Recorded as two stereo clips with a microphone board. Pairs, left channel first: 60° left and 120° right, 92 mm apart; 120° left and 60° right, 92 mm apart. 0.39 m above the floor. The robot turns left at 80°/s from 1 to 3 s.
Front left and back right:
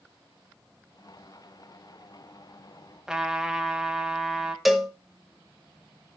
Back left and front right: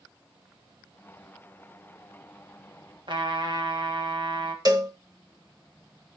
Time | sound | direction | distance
3.1 | a trumpet | 35° right | 1.9 m
4.7 | a cowbell | 30° right | 1.5 m